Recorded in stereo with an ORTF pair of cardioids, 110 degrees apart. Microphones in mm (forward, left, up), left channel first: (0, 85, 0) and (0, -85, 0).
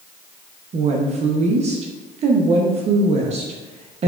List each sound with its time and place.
0.7 s a woman speaking: 40° right, 0.8 m